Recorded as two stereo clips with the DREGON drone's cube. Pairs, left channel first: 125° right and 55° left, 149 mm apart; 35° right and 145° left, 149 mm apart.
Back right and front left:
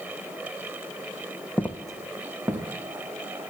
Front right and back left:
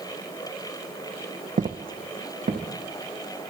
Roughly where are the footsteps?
Behind.